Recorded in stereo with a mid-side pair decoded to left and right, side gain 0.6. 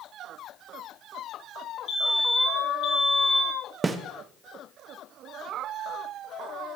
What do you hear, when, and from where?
1.9 s a fire alarm: 55° left, 4 m
3.8 s a snare drum: 20° right, 0.7 m